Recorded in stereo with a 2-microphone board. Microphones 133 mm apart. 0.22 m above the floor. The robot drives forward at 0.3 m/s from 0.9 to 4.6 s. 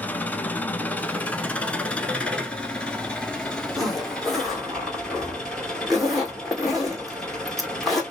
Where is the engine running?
10° left (ahead or behind), 0.8 m; by 8.1 s 5° left (ahead or behind), 1.9 m.